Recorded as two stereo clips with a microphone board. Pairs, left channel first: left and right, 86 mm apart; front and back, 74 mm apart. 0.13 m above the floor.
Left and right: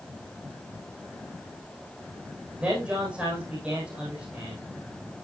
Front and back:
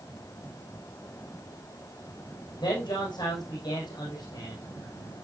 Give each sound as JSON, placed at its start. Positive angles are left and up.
{"t": 2.6, "sound": "a man speaking", "azimuth_deg": -15, "distance_m": 6.0}